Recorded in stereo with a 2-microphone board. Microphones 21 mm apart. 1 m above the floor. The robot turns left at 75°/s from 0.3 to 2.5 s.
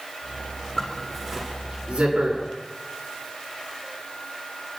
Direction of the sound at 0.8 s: 20° left (ahead or behind).